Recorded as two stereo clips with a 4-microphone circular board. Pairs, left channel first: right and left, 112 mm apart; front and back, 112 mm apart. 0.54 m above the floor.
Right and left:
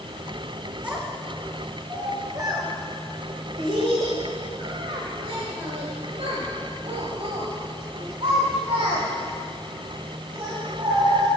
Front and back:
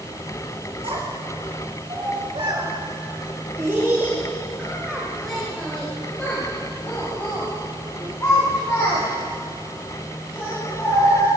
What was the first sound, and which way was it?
A child speaking, 165° left.